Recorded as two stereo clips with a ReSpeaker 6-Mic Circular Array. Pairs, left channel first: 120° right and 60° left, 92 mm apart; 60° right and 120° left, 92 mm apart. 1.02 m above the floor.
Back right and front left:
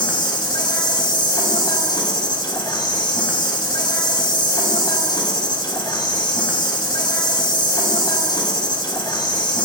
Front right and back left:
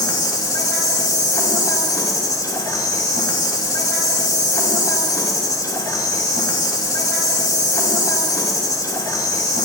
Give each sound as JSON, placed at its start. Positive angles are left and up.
{"t": 0.0, "sound": "an insect", "azimuth_deg": -100, "distance_m": 3.0}